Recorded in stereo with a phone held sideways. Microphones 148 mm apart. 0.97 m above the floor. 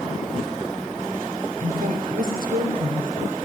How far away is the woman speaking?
About 3.5 m.